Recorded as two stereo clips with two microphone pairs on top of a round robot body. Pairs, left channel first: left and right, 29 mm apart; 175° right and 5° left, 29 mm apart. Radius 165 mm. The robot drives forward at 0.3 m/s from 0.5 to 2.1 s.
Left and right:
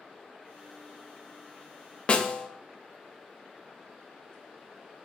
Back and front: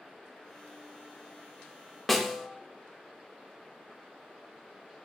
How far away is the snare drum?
About 0.5 m.